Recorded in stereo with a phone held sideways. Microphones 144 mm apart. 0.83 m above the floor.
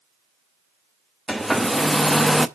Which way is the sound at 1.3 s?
Centre (ahead or behind).